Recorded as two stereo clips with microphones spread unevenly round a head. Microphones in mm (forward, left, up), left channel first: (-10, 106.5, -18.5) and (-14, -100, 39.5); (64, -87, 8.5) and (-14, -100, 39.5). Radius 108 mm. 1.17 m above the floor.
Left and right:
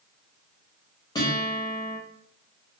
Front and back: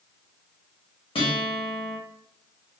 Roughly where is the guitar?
Ahead.